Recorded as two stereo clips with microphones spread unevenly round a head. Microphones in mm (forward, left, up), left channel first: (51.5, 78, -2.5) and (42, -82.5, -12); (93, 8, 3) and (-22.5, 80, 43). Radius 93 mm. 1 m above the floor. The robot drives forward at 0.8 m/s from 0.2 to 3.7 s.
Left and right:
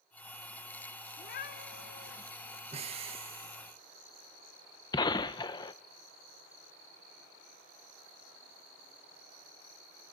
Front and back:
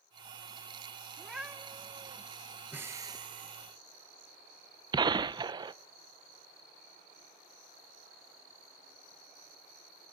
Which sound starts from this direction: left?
A gunshot, at 4.9 s.